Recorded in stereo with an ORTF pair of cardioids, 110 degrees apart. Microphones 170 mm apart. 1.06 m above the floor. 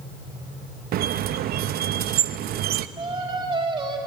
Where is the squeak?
60° right, 0.8 m.